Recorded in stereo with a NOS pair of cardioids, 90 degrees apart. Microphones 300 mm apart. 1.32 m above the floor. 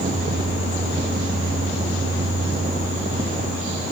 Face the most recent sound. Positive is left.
turn(degrees=-25)